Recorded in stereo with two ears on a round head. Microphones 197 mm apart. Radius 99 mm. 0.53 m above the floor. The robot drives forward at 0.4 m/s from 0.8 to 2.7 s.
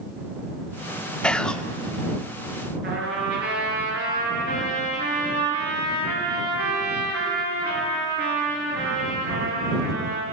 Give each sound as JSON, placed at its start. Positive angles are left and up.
{"t": 1.2, "sound": "whispering", "side_deg": 5, "distance_m": 0.8}
{"t": 2.8, "sound": "a trumpet", "side_deg": -50, "distance_m": 8.5}